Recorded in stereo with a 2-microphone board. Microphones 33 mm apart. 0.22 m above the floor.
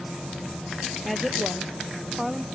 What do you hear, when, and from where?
1.1 s a woman speaking: centre (ahead or behind); by 2.4 s 10° right (ahead or behind)